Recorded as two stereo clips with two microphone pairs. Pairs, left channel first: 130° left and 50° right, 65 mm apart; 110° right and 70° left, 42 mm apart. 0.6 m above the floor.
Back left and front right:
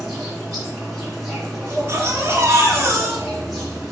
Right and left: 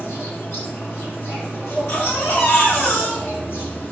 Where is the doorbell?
No doorbell in this recording.